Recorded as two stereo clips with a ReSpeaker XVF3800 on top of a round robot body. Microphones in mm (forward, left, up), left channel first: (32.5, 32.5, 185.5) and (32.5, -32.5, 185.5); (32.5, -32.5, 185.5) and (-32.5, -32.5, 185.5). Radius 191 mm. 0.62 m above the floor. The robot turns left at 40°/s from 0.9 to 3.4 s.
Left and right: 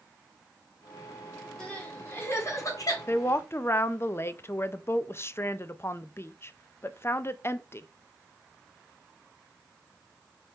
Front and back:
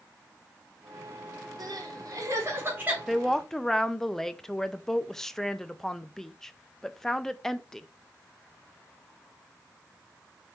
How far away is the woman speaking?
About 0.6 m.